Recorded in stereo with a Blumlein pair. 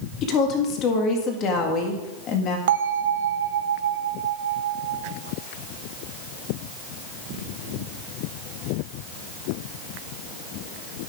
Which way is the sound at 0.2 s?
30° left.